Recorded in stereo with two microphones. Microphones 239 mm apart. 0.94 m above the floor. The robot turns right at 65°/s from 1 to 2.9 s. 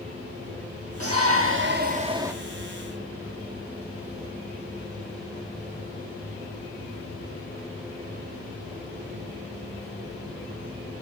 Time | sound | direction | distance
1.0 | a shout | 95° right | 2 m